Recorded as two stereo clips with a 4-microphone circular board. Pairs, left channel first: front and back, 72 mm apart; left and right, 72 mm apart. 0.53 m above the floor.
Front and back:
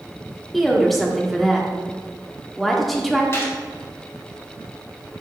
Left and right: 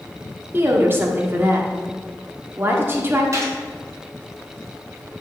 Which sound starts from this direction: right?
A woman speaking, at 0.5 s.